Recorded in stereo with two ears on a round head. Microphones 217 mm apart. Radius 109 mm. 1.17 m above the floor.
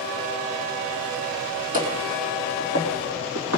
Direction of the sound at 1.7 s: 35° right (ahead or behind).